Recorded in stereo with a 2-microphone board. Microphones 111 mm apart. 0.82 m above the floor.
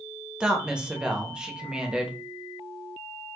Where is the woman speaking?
10° right (ahead or behind), 0.7 m.